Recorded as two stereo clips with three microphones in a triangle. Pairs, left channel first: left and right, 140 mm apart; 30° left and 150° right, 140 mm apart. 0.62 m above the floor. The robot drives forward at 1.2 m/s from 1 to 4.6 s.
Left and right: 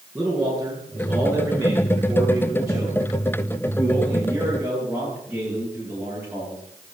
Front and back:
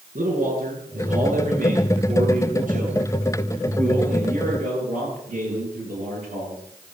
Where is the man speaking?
170° right, 10 m; by 6.6 s 175° right, 14 m.